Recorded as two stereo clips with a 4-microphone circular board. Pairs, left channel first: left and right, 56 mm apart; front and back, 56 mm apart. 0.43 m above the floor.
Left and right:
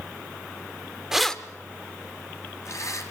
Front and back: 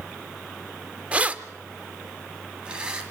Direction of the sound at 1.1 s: 160° right.